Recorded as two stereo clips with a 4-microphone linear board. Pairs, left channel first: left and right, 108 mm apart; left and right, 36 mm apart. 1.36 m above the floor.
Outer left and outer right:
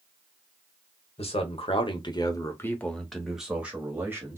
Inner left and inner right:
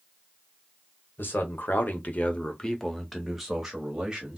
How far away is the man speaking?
About 1.0 m.